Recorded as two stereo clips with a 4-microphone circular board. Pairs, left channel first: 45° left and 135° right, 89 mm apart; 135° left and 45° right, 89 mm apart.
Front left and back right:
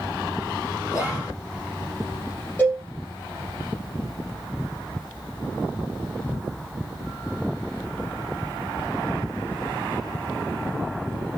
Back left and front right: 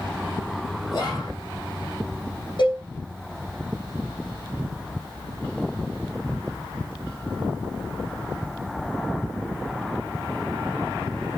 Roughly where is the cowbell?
Behind left.